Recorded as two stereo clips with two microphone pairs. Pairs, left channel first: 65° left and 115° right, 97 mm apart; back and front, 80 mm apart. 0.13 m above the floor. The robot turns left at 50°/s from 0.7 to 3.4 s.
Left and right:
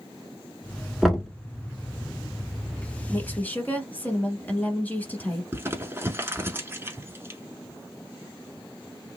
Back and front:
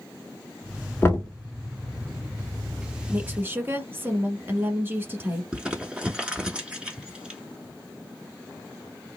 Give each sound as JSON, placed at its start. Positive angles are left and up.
{"t": 1.0, "sound": "knocking", "azimuth_deg": 160, "distance_m": 0.9}
{"t": 3.1, "sound": "a woman speaking", "azimuth_deg": 30, "distance_m": 1.1}
{"t": 5.5, "sound": "crumpling", "azimuth_deg": -70, "distance_m": 0.7}